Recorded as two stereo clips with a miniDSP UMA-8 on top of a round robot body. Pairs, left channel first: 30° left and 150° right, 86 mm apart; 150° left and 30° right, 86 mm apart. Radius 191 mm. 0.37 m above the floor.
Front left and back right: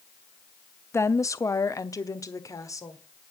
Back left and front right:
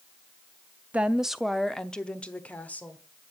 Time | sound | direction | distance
0.9 | a woman speaking | 30° left | 0.8 m